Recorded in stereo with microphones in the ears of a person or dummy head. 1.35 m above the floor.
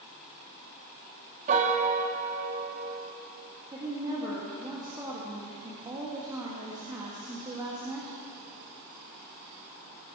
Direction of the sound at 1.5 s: 40° right (ahead or behind).